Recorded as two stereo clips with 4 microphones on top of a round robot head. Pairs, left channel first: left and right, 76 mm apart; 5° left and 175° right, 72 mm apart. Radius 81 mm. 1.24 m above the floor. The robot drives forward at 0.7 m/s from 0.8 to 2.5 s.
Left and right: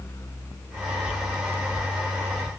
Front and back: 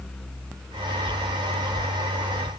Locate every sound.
Only background noise.